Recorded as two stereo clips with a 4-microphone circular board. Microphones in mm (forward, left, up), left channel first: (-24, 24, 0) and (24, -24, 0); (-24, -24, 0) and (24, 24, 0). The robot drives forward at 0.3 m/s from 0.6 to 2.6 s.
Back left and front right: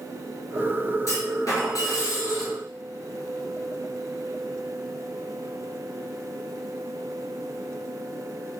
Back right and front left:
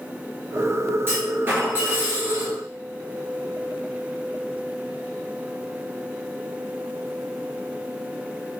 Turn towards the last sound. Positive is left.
turn(degrees=115)